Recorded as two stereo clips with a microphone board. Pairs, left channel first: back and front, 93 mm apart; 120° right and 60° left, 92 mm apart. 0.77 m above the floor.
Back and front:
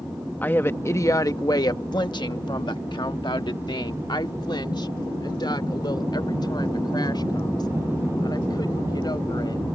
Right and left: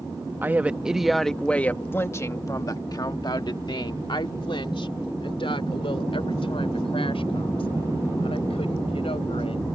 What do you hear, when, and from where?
0.4 s a woman speaking: 120° left; by 9.6 s 135° right